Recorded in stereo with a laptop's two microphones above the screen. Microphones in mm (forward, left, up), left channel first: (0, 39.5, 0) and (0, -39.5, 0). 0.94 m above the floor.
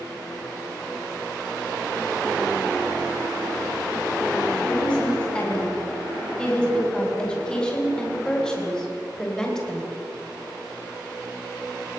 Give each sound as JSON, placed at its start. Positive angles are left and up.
{"t": 4.6, "sound": "a woman speaking", "side_deg": 15, "distance_m": 6.0}